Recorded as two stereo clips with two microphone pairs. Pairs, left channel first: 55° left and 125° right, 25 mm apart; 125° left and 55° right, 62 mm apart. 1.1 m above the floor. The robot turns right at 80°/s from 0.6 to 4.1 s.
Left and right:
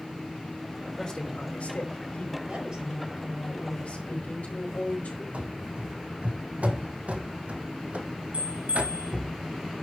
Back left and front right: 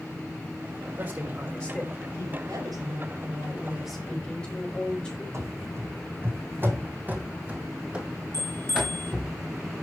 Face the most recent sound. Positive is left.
turn(degrees=-90)